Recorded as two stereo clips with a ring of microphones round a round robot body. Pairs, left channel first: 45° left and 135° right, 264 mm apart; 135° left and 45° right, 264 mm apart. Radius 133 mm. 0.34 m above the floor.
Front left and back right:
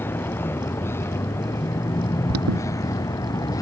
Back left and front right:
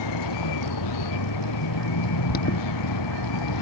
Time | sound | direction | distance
0.0 | a vehicle | 125° left | ?
2.3 | an alarm | 170° right | ?